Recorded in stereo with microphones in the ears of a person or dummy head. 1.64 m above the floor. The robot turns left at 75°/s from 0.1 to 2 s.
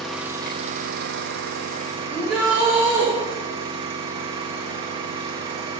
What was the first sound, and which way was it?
An engine running, straight ahead.